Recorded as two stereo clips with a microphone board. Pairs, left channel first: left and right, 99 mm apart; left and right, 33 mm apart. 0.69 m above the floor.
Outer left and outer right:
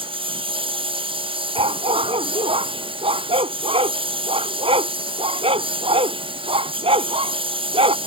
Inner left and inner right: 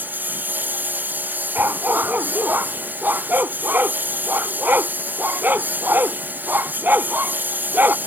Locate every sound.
0.0 s a lawn mower: 60° right (ahead or behind)
1.6 s a dog barking: 80° right